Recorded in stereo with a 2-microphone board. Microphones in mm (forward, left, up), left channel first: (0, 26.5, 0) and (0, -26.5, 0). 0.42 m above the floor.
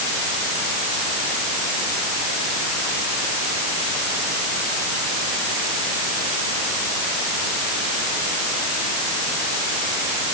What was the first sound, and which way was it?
Only background noise.